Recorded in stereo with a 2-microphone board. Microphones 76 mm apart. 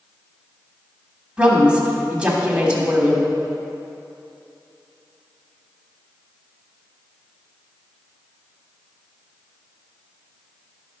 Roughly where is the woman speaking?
Centre.